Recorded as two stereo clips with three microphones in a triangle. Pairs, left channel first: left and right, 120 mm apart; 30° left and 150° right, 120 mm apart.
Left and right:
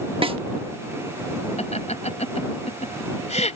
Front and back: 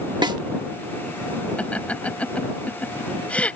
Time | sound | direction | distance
0.2 | a snare drum | 110° right | ?
1.6 | laughter | 110° left | ?